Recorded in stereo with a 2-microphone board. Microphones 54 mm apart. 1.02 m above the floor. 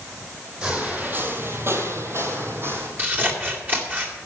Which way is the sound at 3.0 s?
35° right (ahead or behind).